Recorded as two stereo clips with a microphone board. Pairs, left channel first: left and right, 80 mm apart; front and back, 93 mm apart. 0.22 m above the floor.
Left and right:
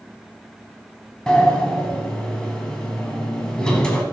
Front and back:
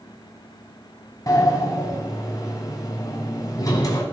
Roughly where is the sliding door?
Ahead.